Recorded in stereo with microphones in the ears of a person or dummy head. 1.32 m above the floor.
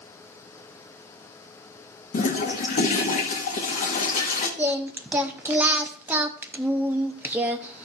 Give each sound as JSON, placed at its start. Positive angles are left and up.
{"t": 2.1, "sound": "a toilet flushing", "side_deg": 40, "distance_m": 1.2}
{"t": 4.6, "sound": "singing", "side_deg": -10, "distance_m": 0.5}